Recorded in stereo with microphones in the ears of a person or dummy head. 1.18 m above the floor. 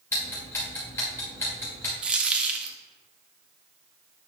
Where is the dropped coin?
10° right (ahead or behind), 0.5 m.